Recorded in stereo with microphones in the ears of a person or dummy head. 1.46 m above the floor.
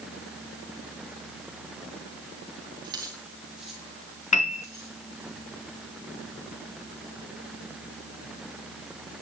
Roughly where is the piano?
Left.